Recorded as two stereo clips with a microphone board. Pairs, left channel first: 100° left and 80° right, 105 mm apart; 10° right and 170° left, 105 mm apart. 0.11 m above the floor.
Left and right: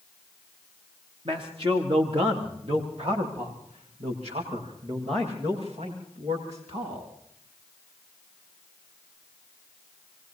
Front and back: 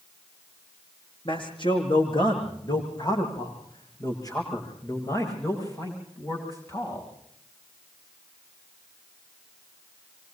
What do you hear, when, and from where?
1.2 s a man speaking: 45° right, 7 m; by 7.1 s 75° right, 12.5 m